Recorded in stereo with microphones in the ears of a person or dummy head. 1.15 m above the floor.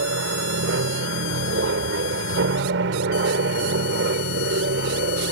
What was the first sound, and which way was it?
An aircraft, 65° right (ahead or behind).